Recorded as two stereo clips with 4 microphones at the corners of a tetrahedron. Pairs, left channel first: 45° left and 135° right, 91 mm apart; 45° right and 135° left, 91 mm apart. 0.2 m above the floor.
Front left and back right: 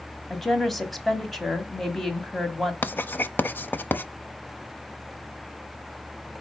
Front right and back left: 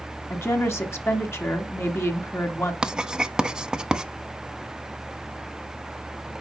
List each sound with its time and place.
0.3 s a woman speaking: 40° right, 1.4 m
2.8 s writing: 70° left, 0.6 m